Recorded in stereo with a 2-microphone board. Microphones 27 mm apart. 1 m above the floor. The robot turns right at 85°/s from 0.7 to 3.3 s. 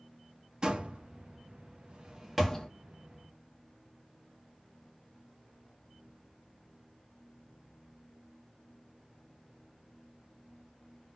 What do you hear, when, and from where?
0.6 s a door slam: 30° right (ahead or behind), 0.9 m; by 2.7 s 20° left (ahead or behind), 0.9 m